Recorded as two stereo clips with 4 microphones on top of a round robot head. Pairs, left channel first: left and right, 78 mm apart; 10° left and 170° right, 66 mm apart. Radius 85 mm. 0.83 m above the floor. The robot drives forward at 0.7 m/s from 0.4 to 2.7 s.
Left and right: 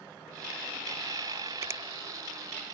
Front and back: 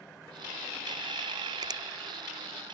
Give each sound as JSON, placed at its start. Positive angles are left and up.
{"t": 1.6, "sound": "a finger snap", "azimuth_deg": -150}